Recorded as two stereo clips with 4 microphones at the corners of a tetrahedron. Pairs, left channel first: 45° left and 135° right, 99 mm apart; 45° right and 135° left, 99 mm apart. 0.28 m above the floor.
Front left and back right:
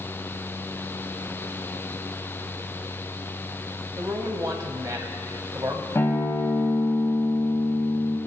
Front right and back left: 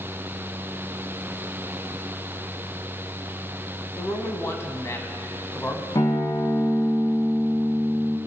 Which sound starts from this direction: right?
A man speaking, at 4.0 s.